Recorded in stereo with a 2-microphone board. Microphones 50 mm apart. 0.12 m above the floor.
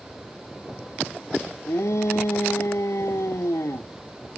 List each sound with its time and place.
1.7 s a shout: 80° left